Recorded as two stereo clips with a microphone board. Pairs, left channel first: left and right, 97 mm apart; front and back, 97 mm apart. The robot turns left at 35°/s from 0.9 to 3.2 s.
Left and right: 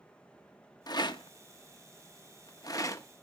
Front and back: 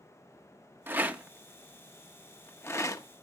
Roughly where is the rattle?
Behind left.